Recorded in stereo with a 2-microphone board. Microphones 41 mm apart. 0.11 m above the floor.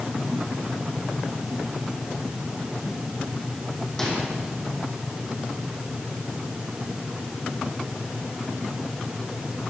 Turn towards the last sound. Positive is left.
turn(degrees=15)  # may be behind; listen again after turning